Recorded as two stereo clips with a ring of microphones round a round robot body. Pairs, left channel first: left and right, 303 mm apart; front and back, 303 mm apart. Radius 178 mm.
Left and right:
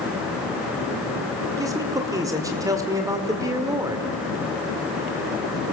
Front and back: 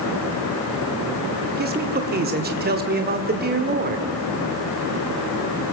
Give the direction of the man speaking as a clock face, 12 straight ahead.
5 o'clock.